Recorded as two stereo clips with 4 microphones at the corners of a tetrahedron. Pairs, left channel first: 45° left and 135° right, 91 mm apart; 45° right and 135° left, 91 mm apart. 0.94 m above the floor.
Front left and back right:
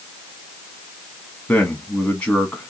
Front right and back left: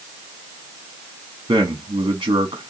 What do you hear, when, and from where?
1.5 s a man speaking: 110° left, 1.4 m